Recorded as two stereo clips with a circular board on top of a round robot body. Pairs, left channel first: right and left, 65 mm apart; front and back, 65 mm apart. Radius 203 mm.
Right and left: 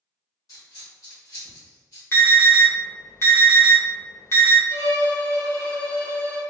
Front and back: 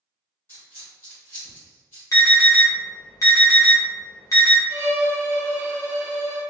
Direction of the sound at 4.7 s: 105° right.